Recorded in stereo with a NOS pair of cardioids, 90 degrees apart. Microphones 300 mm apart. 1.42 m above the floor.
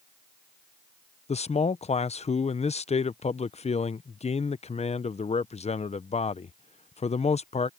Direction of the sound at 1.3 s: 20° left.